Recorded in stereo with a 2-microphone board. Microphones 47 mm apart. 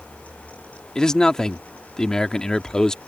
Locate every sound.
0.9 s a man speaking: 15° left (ahead or behind)